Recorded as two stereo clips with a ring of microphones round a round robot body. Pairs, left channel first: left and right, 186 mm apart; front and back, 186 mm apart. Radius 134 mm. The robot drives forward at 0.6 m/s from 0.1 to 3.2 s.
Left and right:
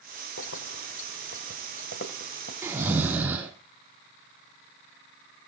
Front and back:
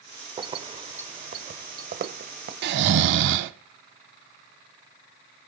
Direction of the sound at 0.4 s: 115° left.